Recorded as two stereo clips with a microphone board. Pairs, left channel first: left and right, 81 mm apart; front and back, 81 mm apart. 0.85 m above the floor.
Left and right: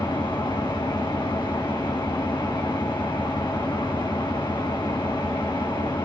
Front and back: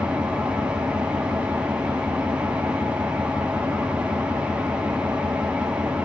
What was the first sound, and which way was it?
An engine running, 105° left.